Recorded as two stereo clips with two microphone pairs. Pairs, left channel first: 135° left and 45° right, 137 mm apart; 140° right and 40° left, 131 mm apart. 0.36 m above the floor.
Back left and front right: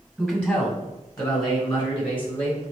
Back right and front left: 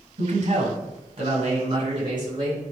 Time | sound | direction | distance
0.2 | a man speaking | 50° left | 1.7 m